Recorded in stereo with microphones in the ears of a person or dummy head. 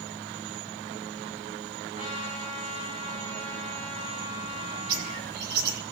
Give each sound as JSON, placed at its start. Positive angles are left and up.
{"t": 1.9, "sound": "a trumpet", "side_deg": -40, "distance_m": 9.5}
{"t": 4.9, "sound": "a bird", "side_deg": -60, "distance_m": 2.5}